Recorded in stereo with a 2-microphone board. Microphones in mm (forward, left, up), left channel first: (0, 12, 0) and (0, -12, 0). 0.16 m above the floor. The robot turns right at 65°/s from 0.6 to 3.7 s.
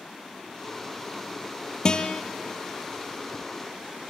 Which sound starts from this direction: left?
A guitar, at 1.9 s.